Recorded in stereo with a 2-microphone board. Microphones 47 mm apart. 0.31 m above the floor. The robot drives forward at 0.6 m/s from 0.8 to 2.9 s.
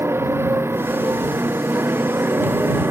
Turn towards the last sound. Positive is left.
turn(degrees=-60)  # may be behind; listen again after turning